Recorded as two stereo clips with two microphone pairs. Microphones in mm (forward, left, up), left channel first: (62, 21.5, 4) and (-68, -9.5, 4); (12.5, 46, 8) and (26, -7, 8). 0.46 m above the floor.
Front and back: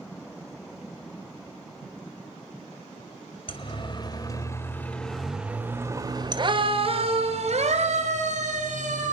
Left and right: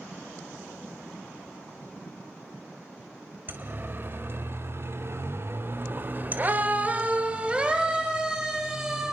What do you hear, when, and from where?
3.5 s a siren: 30° right, 2.5 m; by 9.1 s 155° right, 4 m